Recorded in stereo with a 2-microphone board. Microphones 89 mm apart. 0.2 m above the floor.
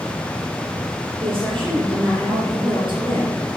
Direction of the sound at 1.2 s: 65° right (ahead or behind).